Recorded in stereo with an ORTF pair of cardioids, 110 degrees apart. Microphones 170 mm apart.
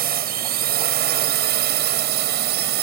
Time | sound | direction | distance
0.0 | a drone | 60° right | ?